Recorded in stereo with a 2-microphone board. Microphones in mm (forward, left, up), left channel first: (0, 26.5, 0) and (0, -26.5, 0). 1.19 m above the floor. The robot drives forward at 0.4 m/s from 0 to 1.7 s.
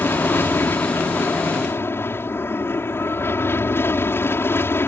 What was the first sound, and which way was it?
An aircraft, 50° left (ahead or behind).